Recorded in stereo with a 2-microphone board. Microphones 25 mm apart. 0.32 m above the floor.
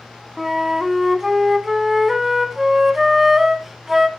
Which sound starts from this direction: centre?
A flute, at 0.4 s.